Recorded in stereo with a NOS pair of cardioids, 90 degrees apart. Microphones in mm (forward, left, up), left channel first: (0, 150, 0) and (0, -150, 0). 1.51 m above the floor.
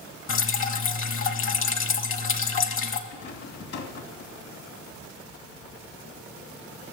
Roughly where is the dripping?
Ahead left.